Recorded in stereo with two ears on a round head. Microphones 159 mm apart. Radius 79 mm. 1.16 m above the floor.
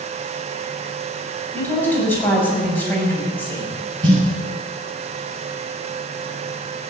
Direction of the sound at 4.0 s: 25° right (ahead or behind).